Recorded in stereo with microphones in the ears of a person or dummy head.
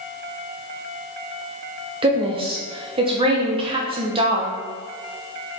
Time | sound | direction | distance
2.0 | a woman speaking | 25° right (ahead or behind) | 0.9 m